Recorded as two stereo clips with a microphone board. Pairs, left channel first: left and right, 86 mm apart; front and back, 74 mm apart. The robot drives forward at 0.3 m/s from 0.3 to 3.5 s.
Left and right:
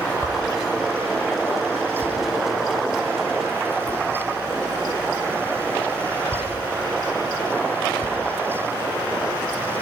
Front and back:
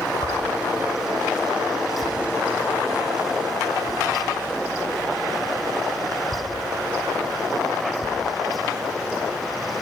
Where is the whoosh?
5° left, 6.5 m.